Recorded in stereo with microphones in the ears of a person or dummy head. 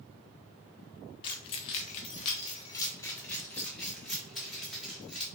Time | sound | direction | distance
1.2 | keys jangling | 30° left (ahead or behind) | 0.7 m